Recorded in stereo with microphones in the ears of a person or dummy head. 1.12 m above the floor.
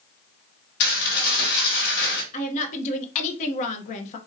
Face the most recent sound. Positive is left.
turn(degrees=45)  # may be behind; listen again after turning